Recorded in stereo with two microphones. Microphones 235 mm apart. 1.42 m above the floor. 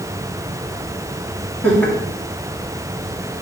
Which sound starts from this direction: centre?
Laughter, at 1.6 s.